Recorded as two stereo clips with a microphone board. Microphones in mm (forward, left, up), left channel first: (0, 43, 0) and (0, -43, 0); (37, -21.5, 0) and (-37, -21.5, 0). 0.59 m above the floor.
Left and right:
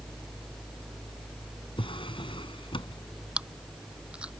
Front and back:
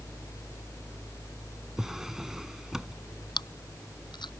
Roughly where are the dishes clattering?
I don't hear dishes clattering.